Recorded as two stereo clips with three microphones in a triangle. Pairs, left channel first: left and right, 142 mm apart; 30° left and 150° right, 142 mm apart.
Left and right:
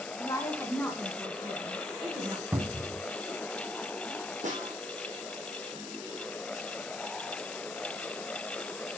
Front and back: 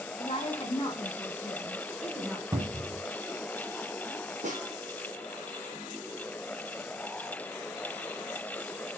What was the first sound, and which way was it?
A woman speaking, 45° left.